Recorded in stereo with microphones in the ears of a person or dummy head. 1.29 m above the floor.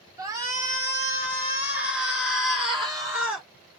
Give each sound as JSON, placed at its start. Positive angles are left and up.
{"t": 0.2, "sound": "a shout", "side_deg": -20, "distance_m": 1.6}